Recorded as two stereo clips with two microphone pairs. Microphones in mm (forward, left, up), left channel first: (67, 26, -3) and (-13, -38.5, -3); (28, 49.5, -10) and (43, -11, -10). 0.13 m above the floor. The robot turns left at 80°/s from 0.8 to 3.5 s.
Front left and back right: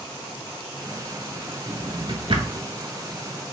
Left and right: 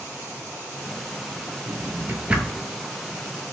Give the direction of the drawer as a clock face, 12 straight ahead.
3 o'clock.